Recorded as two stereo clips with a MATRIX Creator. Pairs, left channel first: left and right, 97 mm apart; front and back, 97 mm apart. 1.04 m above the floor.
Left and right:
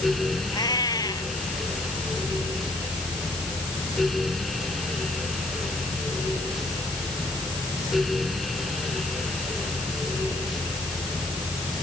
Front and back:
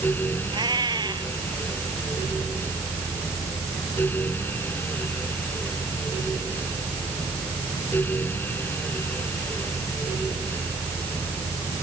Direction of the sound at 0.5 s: 140° left.